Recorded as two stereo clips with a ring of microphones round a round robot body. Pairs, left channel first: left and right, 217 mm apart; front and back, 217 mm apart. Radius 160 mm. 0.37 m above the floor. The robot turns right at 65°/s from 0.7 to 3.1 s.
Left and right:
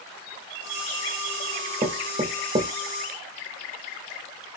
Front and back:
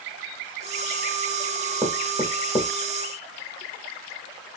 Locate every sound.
1.8 s knocking: 110° right, 0.8 m; by 2.7 s 50° right, 0.8 m